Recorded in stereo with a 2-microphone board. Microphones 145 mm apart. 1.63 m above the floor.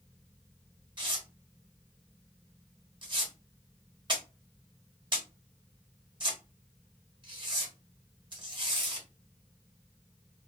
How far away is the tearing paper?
About 1.2 m.